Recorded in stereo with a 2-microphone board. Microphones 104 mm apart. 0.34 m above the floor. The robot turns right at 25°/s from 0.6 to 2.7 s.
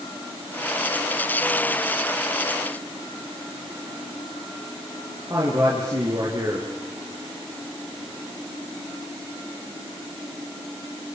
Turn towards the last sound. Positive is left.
turn(degrees=-35)  # may be behind; listen again after turning